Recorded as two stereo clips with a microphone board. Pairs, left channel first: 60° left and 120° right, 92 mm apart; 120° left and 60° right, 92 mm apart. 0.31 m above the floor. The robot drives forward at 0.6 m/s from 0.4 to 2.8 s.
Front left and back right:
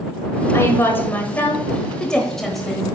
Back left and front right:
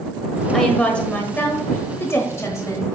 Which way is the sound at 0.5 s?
40° left.